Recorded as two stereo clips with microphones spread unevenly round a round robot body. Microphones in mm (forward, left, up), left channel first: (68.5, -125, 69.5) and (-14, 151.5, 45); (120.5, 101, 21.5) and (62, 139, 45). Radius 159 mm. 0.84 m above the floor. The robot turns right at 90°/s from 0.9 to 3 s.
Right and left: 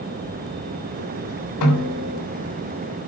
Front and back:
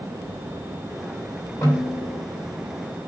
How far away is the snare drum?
About 3 m.